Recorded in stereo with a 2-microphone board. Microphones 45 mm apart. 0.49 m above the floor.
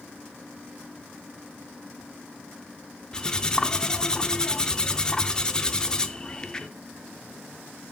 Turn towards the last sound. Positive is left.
turn(degrees=15)  # may be behind; listen again after turning